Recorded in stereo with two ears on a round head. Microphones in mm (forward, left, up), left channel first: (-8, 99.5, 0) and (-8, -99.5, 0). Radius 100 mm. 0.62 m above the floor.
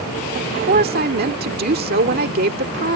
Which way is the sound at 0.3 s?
45° right (ahead or behind).